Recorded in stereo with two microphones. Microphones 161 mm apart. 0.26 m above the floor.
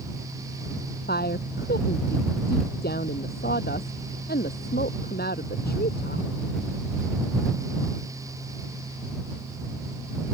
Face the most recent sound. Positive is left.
turn(degrees=75)  # may be behind; listen again after turning